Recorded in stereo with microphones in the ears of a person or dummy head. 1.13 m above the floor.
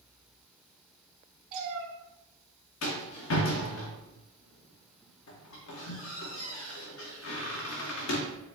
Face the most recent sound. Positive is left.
turn(degrees=65)  # may be behind; listen again after turning